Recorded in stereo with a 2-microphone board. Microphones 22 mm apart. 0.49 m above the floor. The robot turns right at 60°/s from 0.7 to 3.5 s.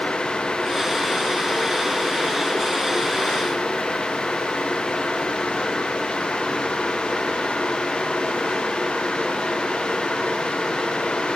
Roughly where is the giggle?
No giggle in this recording.